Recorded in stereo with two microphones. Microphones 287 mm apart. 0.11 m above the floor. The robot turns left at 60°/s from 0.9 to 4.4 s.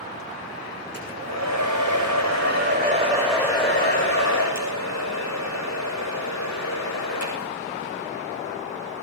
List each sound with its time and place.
0.9 s a hair dryer: 35° right, 9 m; by 7.5 s 115° left, 9 m